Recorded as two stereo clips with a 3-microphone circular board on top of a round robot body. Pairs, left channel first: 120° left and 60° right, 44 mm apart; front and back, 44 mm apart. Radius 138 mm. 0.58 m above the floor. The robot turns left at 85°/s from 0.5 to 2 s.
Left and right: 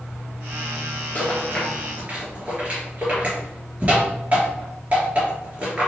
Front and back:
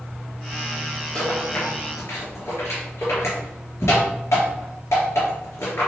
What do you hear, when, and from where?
1.1 s a rattle: 65° left, 3 m; by 5.9 s 5° right, 3 m